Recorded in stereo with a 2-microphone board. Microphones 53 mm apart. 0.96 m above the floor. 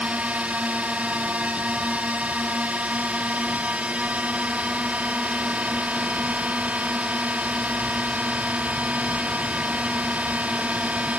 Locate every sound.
0.0 s a drone: 30° right (ahead or behind)